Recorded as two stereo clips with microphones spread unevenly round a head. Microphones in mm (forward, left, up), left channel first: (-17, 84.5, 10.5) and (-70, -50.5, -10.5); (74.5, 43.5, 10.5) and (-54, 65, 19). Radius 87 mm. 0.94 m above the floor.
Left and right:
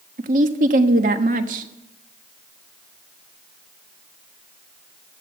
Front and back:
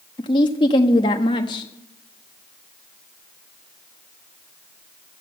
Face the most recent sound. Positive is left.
turn(degrees=-70)